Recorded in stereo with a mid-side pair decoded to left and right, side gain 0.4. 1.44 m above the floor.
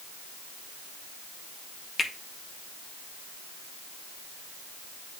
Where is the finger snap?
40° left, 1.9 m.